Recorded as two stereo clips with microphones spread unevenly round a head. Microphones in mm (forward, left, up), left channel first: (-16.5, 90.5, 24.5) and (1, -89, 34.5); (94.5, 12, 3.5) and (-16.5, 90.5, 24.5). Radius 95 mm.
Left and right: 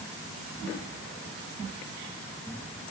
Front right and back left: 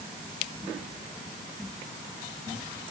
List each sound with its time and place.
Only background noise.